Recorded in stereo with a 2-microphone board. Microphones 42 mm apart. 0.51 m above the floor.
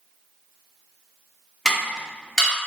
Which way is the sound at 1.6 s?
10° left (ahead or behind).